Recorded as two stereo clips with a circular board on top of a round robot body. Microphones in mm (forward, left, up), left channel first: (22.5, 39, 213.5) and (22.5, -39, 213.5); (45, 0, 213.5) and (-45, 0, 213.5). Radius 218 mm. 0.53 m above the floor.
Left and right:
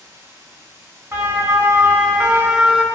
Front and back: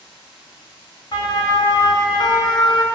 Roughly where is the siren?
Ahead right.